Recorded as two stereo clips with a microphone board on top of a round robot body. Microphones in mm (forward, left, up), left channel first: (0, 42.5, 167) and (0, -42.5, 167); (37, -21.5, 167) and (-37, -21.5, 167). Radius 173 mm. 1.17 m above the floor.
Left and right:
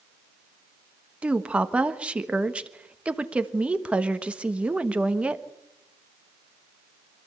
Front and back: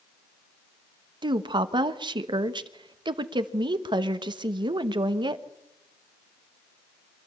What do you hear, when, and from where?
1.2 s a woman speaking: 165° right, 1.4 m